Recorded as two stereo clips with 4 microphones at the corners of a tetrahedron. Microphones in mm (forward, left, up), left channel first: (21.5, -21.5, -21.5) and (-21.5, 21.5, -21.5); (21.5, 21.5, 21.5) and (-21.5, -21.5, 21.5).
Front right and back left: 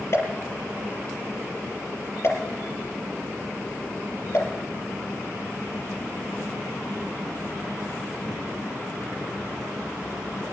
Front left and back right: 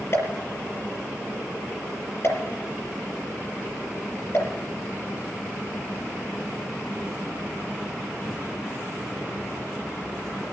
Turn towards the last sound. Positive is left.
turn(degrees=0)